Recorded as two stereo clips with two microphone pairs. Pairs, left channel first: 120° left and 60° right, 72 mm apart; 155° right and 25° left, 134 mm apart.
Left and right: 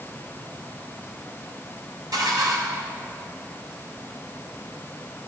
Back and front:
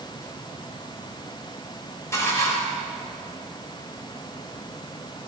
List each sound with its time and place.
2.1 s dishes clattering: 85° right, 2.5 m